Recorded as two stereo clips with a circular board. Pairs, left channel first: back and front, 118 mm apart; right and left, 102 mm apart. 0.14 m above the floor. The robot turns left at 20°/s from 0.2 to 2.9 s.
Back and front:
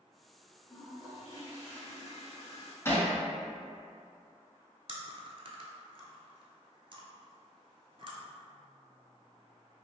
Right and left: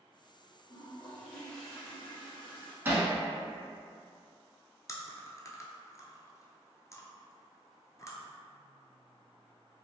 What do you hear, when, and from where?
0.7 s a toilet flushing: 165° right, 1.9 m; by 2.8 s 155° left, 1.9 m
2.9 s hammering: 135° left, 0.8 m
4.9 s chewing: 35° right, 0.5 m